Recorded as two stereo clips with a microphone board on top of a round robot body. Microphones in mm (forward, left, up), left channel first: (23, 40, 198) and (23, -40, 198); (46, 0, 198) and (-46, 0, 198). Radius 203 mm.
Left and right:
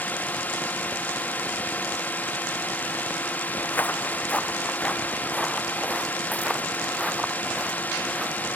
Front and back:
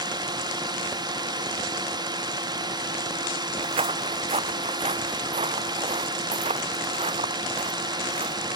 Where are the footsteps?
160° left; by 8.3 s 175° right.